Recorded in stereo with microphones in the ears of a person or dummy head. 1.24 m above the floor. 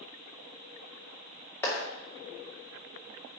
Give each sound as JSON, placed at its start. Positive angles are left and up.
{"t": 1.6, "sound": "a clap", "side_deg": 10, "distance_m": 2.0}